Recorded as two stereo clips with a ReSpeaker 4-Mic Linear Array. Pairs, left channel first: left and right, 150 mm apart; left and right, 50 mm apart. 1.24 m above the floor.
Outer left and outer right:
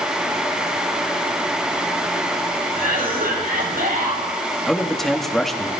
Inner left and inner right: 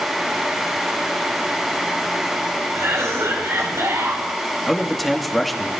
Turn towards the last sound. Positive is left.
turn(degrees=0)  # may be behind; listen again after turning